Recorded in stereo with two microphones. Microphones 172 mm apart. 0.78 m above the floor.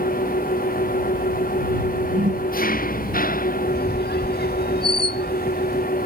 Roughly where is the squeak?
Left.